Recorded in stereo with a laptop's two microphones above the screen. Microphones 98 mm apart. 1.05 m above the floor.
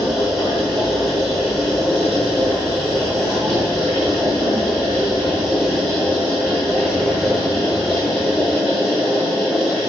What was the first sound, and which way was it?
A machine running, centre (ahead or behind).